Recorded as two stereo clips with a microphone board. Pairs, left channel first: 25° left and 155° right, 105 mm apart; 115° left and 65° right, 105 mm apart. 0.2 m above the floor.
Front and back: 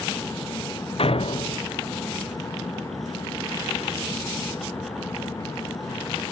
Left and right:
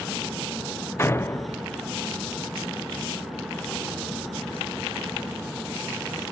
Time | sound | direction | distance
1.0 | a door slam | 45° left | ?